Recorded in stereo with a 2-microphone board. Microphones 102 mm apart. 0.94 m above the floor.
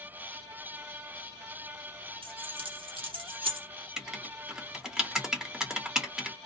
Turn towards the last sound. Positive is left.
turn(degrees=-5)  # may be behind; listen again after turning